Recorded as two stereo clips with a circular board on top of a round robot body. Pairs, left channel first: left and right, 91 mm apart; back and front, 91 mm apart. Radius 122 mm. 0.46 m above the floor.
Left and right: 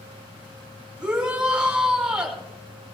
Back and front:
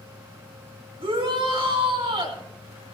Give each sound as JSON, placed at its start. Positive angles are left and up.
{"t": 1.0, "sound": "a shout", "azimuth_deg": -10, "distance_m": 6.0}